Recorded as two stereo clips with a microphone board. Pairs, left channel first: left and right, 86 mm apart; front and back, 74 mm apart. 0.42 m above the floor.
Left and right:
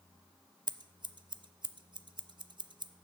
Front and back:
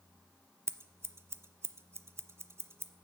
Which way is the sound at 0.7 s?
125° right.